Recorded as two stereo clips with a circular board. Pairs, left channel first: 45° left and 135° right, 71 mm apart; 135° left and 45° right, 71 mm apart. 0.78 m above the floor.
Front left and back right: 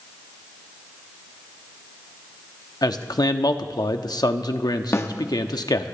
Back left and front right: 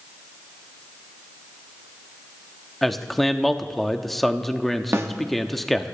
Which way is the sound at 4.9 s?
Straight ahead.